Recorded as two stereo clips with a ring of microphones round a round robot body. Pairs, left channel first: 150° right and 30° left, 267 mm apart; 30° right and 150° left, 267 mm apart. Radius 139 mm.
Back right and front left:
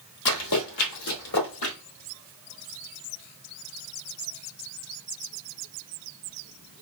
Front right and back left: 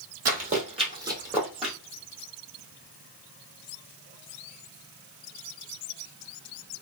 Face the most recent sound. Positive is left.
turn(degrees=-115)